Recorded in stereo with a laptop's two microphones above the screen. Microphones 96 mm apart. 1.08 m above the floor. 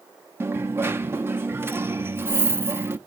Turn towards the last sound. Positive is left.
turn(degrees=-25)  # may be behind; listen again after turning